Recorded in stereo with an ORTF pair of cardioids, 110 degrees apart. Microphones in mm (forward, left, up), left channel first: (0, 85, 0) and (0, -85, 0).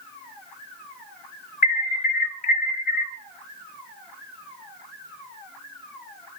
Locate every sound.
1.6 s an alarm: 50° left, 1.2 m